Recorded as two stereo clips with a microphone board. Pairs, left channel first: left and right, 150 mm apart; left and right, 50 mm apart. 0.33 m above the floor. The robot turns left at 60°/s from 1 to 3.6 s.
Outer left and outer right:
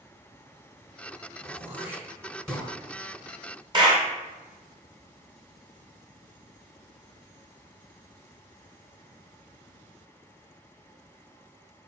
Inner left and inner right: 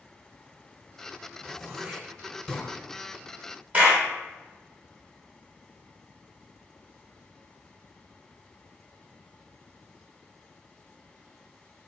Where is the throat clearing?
20° right (ahead or behind), 1.5 m; by 2.7 s 10° left (ahead or behind), 1.5 m.